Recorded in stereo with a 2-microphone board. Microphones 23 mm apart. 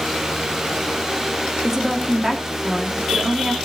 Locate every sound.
1.6 s a woman speaking: 20° right (ahead or behind), 2.5 m